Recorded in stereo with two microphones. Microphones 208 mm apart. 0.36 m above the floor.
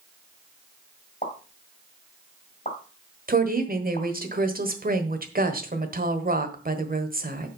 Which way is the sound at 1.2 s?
35° left (ahead or behind).